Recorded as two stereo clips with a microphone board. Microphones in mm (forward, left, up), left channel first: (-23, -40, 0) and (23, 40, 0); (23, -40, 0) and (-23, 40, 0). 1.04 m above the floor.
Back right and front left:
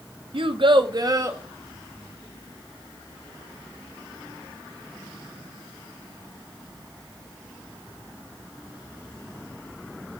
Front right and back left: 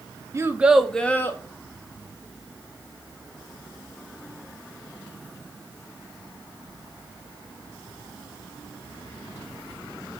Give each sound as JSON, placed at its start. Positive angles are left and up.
{"t": 0.3, "sound": "a child speaking", "azimuth_deg": 65, "distance_m": 0.5}